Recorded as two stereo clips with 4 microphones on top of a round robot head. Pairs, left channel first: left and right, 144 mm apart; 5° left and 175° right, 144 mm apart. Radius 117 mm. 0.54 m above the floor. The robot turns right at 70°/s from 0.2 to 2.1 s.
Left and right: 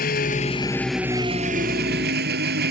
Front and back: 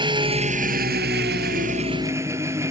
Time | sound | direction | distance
0.0 | an engine running | 130° left | ?